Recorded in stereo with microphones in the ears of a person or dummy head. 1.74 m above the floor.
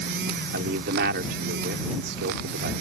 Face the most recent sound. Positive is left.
turn(degrees=-60)  # may be behind; listen again after turning